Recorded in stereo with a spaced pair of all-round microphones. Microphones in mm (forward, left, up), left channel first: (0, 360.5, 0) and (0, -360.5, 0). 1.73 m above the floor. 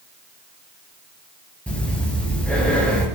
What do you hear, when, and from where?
1.7 s breathing: centre (ahead or behind), 5.5 m